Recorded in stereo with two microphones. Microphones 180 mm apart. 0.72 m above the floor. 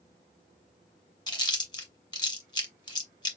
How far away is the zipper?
No zipper in this recording.